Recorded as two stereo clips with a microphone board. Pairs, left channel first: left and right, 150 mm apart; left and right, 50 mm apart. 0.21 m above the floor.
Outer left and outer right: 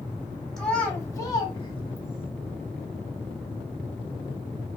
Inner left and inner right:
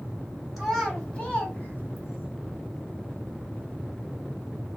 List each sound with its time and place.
0.6 s a child speaking: centre (ahead or behind), 0.8 m; by 2.3 s 35° left (ahead or behind), 1.2 m